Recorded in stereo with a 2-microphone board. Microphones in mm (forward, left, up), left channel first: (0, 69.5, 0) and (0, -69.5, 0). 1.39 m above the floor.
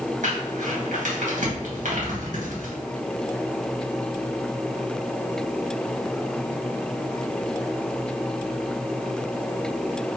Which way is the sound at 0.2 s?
65° right (ahead or behind).